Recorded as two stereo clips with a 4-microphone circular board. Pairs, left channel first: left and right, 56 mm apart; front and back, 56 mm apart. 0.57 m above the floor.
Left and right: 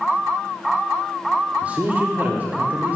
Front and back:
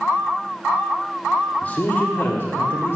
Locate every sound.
1.6 s a man speaking: 45° right, 1.1 m; by 3.0 s 35° right, 1.9 m